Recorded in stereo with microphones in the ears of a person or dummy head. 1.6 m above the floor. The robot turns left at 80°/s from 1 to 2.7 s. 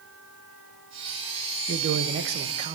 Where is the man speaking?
65° right, 1.0 m; by 2.8 s 150° right, 1.0 m.